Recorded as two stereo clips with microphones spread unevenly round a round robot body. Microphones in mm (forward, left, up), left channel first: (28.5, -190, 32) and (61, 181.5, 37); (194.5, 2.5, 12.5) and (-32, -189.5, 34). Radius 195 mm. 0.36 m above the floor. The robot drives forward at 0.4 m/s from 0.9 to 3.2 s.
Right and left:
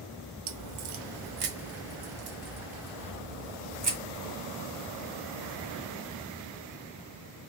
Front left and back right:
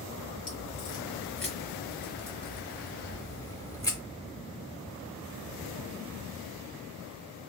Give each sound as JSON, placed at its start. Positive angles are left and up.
{"t": 0.5, "sound": "a crack", "azimuth_deg": 110, "distance_m": 0.7}